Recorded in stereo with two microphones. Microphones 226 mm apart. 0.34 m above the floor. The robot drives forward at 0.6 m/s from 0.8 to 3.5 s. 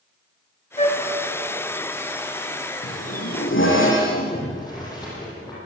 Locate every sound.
0.8 s a flute: 25° left (ahead or behind), 2.5 m
2.8 s a zipper: 65° left (ahead or behind), 5.5 m; by 4.4 s 60° left (ahead or behind), 5.5 m
4.3 s boiling: 15° left (ahead or behind), 9.5 m